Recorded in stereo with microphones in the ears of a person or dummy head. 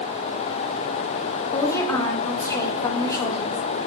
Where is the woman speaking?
20° left (ahead or behind), 1.9 m.